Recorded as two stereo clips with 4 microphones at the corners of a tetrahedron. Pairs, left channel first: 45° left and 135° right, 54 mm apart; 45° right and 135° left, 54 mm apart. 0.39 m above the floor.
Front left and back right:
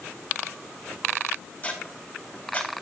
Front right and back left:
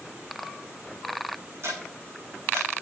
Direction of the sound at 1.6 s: 105° left.